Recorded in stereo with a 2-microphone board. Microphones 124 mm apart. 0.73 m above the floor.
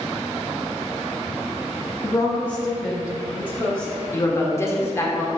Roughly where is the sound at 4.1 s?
Left.